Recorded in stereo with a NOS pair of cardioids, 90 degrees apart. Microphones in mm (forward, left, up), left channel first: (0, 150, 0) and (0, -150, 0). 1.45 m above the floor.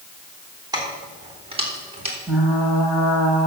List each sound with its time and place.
0.7 s keys jangling: 15° right, 3.5 m; by 2.2 s 20° right, 4 m
2.3 s frying: straight ahead, 4.5 m